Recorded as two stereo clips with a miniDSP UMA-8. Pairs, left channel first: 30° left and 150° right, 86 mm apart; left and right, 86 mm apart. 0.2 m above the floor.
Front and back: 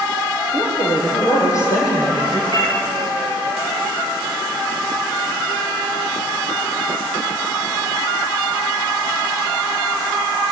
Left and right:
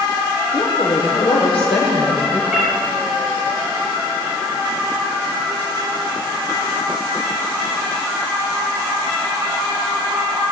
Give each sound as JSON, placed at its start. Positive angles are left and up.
{"t": 0.5, "sound": "a woman speaking", "azimuth_deg": 80, "distance_m": 7.5}
{"t": 2.5, "sound": "a cat meowing", "azimuth_deg": -10, "distance_m": 7.5}